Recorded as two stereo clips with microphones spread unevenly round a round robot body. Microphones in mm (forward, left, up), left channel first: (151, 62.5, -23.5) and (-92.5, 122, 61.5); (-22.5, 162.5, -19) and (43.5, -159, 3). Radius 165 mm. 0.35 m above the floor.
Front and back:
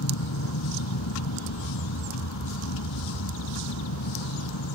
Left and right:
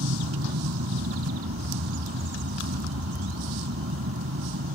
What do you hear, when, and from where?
0.0 s an aircraft: 25° right